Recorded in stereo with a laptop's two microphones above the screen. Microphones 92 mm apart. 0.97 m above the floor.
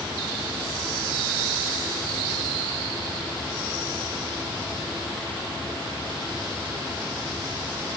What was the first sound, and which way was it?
Only background noise.